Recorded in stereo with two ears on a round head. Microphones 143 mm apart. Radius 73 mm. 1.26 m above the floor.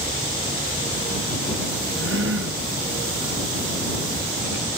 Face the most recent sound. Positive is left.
turn(degrees=-80)